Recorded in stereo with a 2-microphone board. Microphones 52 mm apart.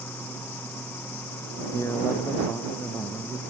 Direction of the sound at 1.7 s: 55° left (ahead or behind).